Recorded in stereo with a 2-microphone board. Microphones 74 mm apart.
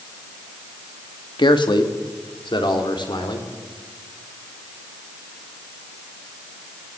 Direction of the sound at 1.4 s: 80° left.